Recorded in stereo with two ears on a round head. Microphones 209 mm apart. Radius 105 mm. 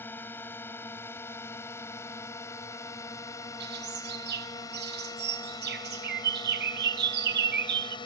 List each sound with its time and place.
0.0 s a drone: 10° left (ahead or behind); by 8.1 s 20° left (ahead or behind)
3.6 s a bird: 50° right (ahead or behind)